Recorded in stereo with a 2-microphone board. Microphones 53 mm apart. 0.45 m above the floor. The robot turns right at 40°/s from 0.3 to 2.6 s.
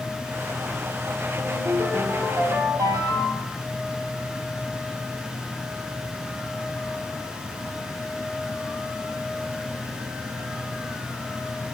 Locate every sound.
1.4 s a ringtone: 120° right, 9 m; by 3.6 s 70° right, 9 m